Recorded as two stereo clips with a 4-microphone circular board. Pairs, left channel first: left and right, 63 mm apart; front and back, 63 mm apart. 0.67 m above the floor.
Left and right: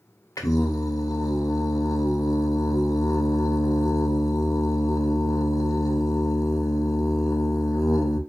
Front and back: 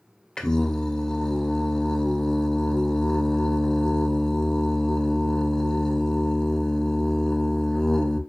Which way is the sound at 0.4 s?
80° left.